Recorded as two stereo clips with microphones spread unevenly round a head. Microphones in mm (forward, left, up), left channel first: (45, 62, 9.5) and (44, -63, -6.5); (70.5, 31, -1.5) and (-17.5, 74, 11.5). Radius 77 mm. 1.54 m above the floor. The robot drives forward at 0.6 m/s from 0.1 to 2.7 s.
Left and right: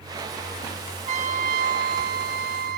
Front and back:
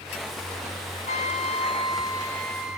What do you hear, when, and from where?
1.1 s a trumpet: 60° right, 1.0 m; by 2.8 s 120° right, 1.0 m